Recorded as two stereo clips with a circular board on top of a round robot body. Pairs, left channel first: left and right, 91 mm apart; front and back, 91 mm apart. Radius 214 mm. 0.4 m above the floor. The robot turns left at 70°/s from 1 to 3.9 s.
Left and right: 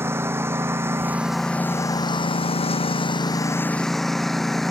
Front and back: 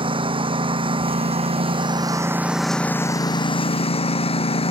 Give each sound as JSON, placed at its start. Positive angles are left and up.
{"t": 0.0, "sound": "a lawn mower", "azimuth_deg": -155}